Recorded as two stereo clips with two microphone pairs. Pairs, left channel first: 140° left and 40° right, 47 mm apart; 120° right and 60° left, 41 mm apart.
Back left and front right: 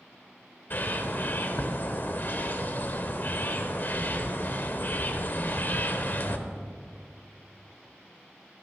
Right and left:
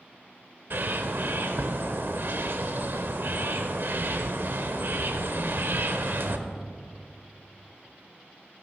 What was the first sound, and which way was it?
A bird, 90° left.